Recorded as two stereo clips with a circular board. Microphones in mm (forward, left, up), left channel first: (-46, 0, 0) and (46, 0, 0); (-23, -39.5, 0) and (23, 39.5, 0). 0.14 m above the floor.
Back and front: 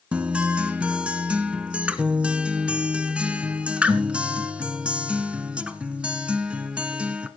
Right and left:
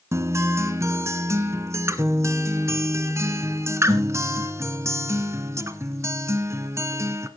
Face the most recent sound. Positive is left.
turn(degrees=65)